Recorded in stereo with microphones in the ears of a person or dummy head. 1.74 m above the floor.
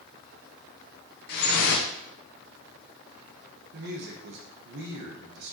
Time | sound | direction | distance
1.3 | dripping | 50° left (ahead or behind) | 0.9 m
3.7 | a woman speaking | 55° right (ahead or behind) | 0.9 m